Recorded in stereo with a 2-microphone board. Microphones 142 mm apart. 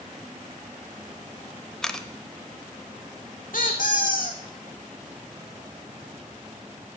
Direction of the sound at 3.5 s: 75° left (ahead or behind).